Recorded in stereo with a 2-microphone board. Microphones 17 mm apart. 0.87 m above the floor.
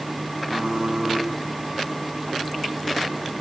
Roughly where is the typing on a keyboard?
Right.